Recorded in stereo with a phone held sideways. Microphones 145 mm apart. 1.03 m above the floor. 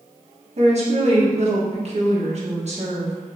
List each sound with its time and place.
0.6 s a woman speaking: 50° right (ahead or behind), 1.1 m